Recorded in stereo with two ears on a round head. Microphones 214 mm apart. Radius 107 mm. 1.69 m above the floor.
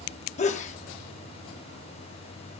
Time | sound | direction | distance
0.4 | a sneeze | 30° left (ahead or behind) | 0.5 m